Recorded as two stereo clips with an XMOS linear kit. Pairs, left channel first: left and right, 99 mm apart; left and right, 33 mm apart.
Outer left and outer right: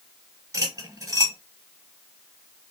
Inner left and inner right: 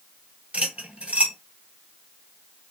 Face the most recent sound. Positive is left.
turn(degrees=-30)  # may be behind; listen again after turning